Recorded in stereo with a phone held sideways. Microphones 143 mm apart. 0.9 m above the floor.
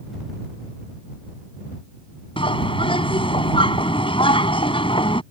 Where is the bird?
40° left (ahead or behind).